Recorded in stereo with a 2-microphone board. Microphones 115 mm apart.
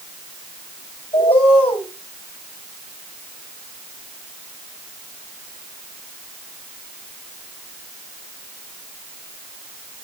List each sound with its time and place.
1.1 s a bird: 55° left (ahead or behind), 7 m